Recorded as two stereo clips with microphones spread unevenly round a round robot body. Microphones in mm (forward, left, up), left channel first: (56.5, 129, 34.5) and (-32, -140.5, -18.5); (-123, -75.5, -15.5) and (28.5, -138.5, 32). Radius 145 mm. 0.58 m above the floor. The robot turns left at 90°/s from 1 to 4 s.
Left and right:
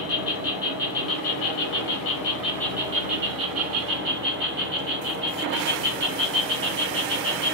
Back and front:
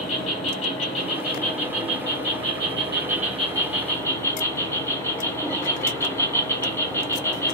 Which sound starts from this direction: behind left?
An insect, at 0.0 s.